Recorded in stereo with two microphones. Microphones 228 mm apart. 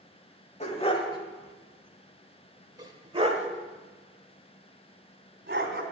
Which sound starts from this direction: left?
A dog barking, at 0.6 s.